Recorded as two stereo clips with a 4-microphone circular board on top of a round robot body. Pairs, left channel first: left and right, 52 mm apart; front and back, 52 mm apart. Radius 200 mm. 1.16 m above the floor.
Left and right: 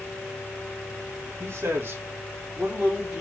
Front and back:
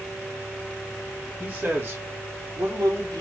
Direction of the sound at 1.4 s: 115° right.